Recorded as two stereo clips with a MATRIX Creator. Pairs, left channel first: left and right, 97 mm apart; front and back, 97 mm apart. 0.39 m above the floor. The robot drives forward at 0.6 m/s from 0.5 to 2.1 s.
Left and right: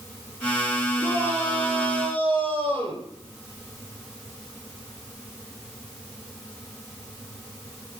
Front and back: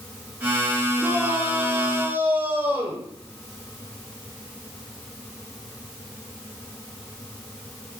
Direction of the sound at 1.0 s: 105° right.